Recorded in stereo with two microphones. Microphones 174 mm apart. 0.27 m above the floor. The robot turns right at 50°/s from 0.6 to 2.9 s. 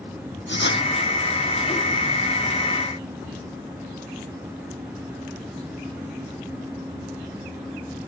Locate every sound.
0.5 s writing: 80° left